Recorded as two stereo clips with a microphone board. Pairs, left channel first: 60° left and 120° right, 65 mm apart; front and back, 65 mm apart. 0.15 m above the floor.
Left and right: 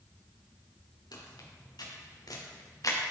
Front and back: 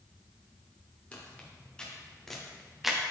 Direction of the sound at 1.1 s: 70° left.